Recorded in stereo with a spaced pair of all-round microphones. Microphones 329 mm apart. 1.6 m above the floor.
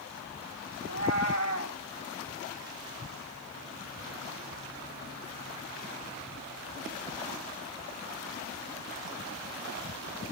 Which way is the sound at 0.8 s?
50° left (ahead or behind).